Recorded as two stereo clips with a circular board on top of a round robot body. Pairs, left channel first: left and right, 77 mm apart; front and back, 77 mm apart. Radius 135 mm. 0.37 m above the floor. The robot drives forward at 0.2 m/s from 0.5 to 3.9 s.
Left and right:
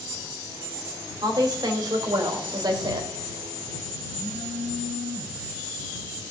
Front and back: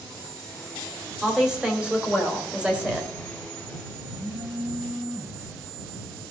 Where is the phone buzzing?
115° right, 4.5 m.